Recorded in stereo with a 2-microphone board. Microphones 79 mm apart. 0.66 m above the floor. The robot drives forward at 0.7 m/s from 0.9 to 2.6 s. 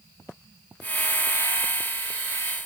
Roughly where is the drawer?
I don't hear a drawer.